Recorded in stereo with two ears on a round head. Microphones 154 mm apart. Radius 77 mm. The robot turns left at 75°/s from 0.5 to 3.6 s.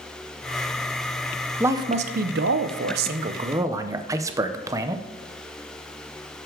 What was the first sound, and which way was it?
A man speaking, 10° right.